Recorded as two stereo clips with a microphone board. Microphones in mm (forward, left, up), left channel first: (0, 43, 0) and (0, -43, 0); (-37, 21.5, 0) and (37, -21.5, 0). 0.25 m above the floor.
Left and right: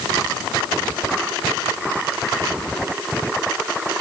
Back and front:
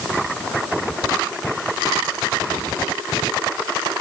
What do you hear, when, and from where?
Only background noise.